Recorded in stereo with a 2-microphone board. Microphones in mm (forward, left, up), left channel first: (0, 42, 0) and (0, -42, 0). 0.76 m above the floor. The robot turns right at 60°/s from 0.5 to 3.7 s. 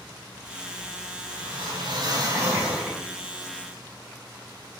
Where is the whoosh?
105° right, 7 m; by 3.0 s 5° right, 7 m.